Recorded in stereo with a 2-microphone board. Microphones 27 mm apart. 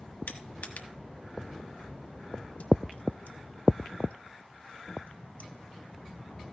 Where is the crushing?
65° left (ahead or behind), 1.2 m.